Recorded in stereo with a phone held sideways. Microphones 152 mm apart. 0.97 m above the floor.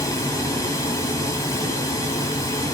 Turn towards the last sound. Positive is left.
turn(degrees=20)  # may be behind; listen again after turning